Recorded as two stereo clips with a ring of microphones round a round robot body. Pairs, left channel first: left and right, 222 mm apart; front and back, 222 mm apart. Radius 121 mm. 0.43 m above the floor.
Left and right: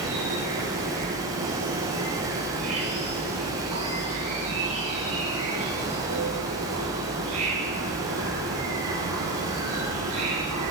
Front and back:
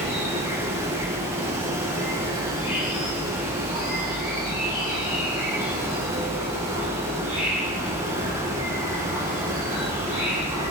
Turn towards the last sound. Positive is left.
turn(degrees=-105)